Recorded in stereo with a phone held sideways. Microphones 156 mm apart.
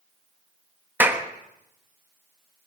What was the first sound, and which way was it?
A clap, 10° right (ahead or behind).